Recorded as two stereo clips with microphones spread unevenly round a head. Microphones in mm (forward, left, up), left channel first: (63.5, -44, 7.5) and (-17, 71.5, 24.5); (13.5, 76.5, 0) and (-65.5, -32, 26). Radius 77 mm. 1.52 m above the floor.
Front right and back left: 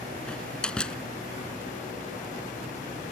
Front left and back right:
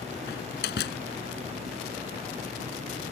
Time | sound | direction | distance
0.3 | a door slam | 30° left | ?